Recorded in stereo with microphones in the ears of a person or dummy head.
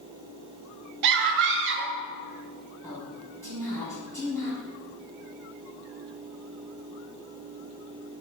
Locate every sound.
1.0 s a scream: 60° right (ahead or behind), 0.6 m
2.8 s a woman speaking: 15° left (ahead or behind), 1.8 m